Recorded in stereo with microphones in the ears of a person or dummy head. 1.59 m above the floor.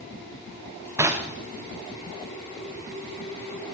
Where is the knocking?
15° right (ahead or behind), 0.8 m.